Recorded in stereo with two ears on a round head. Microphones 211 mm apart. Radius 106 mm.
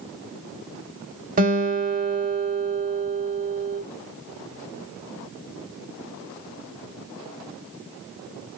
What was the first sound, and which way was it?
A guitar, 35° right (ahead or behind).